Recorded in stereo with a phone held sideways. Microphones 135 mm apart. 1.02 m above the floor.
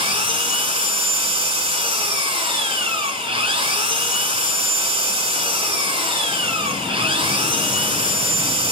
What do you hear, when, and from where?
0.0 s an engine running: 40° right (ahead or behind), 2.5 m